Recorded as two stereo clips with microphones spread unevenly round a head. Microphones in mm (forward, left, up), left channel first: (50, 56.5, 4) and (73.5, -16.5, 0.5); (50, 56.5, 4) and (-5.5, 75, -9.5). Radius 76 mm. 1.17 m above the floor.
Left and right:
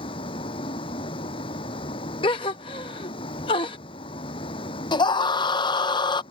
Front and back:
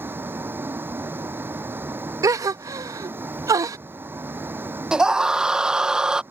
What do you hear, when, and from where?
0.0 s a vehicle: 110° left
2.2 s a gasp: 135° left
4.9 s a scream: 90° left